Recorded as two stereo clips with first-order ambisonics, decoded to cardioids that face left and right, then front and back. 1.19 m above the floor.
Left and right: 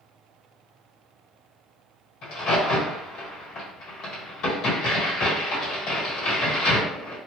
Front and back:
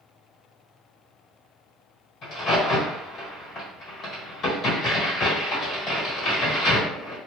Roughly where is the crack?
Ahead left.